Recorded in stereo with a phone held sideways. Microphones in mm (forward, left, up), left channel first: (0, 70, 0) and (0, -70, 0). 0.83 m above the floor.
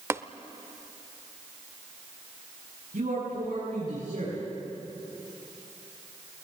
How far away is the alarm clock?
No alarm clock in this recording.